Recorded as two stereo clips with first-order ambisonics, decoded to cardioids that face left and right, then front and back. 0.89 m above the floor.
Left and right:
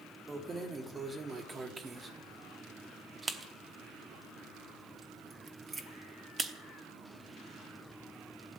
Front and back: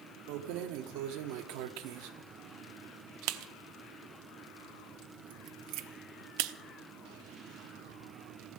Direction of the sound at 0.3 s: 165° right.